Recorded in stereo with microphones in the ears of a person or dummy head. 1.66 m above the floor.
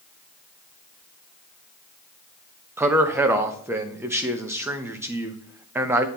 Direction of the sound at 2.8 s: 15° right (ahead or behind).